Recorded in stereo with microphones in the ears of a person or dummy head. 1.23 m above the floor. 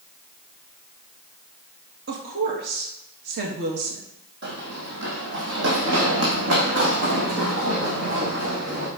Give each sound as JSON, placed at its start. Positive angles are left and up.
{"t": 2.1, "sound": "a woman speaking", "side_deg": -50, "distance_m": 2.0}
{"t": 4.4, "sound": "running footsteps", "side_deg": -55, "distance_m": 2.5}